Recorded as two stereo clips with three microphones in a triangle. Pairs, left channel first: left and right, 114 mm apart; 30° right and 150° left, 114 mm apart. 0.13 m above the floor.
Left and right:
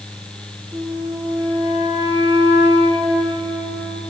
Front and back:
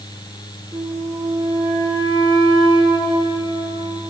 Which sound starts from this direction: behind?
A flute, at 0.7 s.